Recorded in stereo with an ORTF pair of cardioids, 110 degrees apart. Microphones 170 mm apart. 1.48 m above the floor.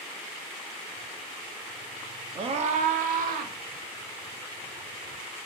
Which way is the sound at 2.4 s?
35° right.